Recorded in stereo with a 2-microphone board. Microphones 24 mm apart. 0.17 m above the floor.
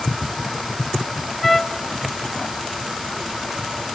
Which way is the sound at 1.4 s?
15° left (ahead or behind).